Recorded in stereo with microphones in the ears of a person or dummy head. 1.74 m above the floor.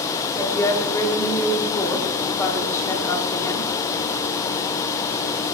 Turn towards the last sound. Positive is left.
turn(degrees=20)  # may be behind; listen again after turning